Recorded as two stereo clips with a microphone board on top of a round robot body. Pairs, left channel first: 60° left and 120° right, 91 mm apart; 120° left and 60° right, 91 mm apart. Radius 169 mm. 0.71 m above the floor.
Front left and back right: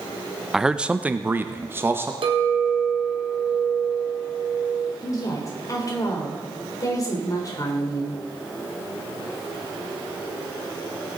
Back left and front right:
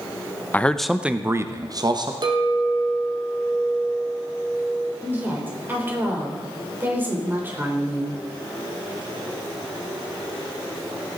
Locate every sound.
0.5 s a man speaking: 160° left, 0.9 m; by 2.1 s 60° right, 1.4 m
2.2 s a clink: 95° right, 1.7 m
5.0 s a woman speaking: 10° left, 3.5 m